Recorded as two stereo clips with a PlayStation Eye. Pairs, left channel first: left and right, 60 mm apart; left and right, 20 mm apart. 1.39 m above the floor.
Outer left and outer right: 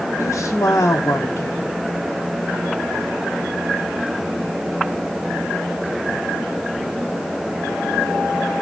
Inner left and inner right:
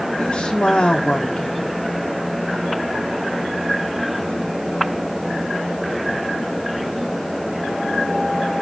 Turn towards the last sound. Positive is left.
turn(degrees=55)  # may be behind; listen again after turning